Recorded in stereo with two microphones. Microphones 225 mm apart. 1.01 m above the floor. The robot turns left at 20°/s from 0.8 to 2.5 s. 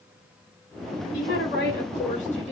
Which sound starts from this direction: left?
A woman speaking, at 1.1 s.